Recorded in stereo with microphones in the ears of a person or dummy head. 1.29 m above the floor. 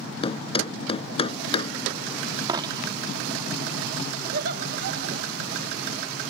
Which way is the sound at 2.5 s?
20° right (ahead or behind).